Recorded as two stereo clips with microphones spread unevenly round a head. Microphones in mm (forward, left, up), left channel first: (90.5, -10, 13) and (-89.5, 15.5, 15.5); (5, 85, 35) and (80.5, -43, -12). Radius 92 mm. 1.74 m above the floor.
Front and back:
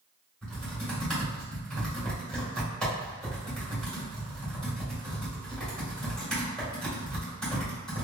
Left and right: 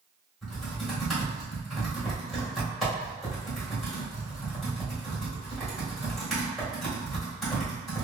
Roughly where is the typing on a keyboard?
Left.